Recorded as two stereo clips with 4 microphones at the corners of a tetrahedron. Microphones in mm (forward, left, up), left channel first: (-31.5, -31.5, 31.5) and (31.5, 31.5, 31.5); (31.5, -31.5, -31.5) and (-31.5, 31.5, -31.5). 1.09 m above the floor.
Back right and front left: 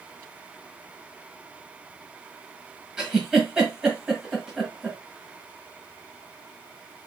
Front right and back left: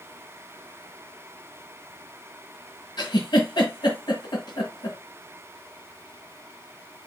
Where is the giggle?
35° right, 1.6 m.